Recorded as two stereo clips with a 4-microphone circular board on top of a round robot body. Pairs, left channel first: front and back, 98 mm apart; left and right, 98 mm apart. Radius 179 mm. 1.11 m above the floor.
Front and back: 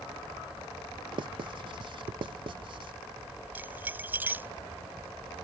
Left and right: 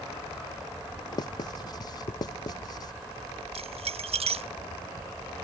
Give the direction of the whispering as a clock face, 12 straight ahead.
No whispering in this recording.